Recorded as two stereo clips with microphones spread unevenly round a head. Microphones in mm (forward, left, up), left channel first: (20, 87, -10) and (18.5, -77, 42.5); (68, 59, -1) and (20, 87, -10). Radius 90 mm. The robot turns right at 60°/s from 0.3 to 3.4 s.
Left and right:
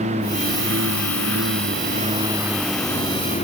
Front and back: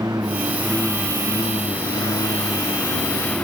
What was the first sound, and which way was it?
A lawn mower, 145° right.